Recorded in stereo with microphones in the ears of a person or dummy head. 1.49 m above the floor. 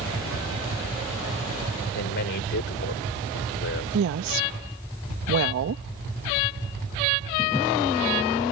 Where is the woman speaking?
75° right (ahead or behind).